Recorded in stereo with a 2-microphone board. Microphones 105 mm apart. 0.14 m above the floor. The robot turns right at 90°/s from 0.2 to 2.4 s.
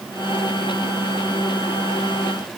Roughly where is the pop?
I don't hear a pop.